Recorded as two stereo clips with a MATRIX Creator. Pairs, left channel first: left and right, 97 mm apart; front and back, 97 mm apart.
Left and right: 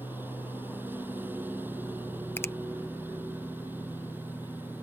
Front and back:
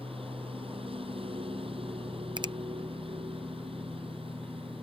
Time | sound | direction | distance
0.0 | a lawn mower | 160° right | ?
2.4 | a finger snap | 150° left | ?